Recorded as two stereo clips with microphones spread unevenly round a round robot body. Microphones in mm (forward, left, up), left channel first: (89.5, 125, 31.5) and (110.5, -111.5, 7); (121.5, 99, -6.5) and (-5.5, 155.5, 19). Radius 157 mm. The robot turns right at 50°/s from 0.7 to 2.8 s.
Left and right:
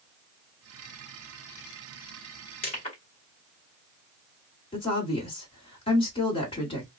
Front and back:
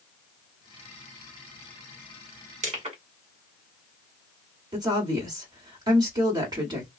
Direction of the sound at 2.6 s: 145° left.